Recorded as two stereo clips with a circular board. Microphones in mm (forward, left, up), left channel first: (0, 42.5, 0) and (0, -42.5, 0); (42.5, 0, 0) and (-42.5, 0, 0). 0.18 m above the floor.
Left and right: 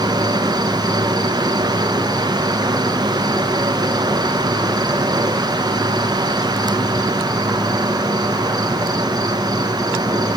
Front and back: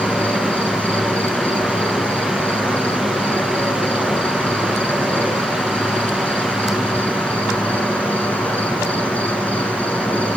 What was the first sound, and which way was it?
An insect, 65° right.